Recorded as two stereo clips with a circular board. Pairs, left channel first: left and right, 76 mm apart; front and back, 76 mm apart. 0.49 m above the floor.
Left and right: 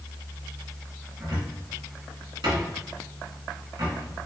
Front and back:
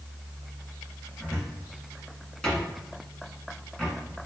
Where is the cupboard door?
80° right, 1.6 m.